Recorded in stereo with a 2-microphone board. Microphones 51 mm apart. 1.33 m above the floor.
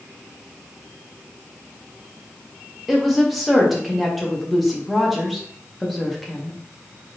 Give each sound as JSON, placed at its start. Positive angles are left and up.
{"t": 2.9, "sound": "a woman speaking", "side_deg": 0, "distance_m": 1.1}